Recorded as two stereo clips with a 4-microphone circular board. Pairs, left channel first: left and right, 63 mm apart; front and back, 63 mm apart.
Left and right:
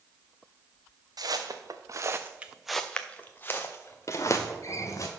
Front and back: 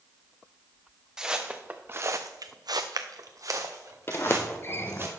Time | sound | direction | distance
1.2 | footsteps | 100° right | 1.1 m
4.1 | a sliding door | 55° left | 0.7 m